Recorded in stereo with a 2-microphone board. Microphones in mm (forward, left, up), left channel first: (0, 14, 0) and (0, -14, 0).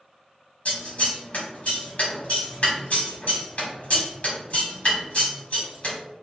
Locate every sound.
0.7 s scissors: 50° left (ahead or behind), 1.5 m